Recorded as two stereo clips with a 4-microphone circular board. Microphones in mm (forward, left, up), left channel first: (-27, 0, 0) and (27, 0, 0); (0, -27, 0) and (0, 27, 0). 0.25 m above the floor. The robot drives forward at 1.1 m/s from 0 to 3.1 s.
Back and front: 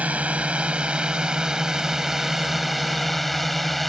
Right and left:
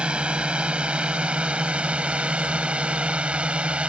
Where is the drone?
40° left; by 3.9 s 95° left.